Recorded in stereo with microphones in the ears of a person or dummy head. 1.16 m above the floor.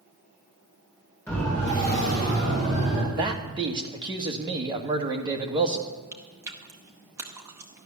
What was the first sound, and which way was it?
A siren, 15° left (ahead or behind).